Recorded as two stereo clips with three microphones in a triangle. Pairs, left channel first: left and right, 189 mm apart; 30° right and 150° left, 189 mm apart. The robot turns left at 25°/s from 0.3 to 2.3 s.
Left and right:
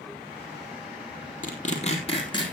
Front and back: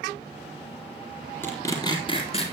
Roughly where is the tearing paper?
Ahead left.